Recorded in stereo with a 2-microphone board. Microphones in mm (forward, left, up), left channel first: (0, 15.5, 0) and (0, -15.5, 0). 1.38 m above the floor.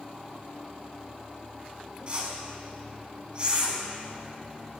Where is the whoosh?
35° right (ahead or behind), 1.9 m.